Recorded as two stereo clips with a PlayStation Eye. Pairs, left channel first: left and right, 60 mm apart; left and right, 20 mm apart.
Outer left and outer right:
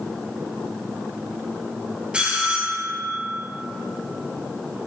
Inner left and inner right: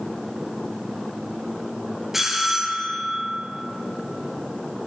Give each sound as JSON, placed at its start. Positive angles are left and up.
{"t": 2.1, "sound": "a bell", "side_deg": -20, "distance_m": 2.0}